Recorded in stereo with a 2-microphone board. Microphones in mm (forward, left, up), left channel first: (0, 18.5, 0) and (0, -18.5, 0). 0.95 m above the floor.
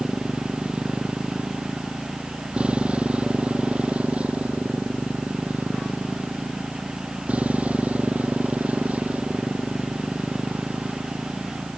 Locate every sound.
0.0 s a motorcycle: 25° right (ahead or behind); by 11.8 s 45° right (ahead or behind)